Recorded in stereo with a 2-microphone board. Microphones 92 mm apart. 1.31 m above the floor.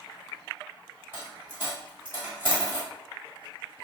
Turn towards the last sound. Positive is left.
turn(degrees=-25)  # may be behind; listen again after turning